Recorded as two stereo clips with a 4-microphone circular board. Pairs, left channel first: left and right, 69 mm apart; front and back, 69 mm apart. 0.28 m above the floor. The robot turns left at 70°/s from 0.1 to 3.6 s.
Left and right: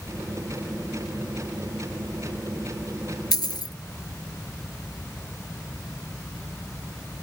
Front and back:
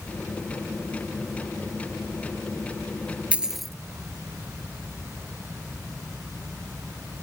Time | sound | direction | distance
3.3 | a dropped coin | 110° left | ?